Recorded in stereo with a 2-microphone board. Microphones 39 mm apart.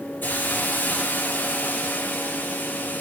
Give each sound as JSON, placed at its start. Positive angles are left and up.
{"t": 0.2, "sound": "a hiss", "side_deg": 60, "distance_m": 3.5}